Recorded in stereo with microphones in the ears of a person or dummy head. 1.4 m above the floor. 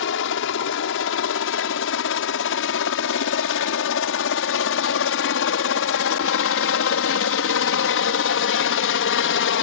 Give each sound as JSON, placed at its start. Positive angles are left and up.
{"t": 0.0, "sound": "a helicopter", "side_deg": 70}